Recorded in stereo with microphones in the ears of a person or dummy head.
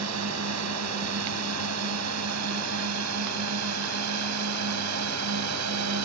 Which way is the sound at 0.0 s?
80° right.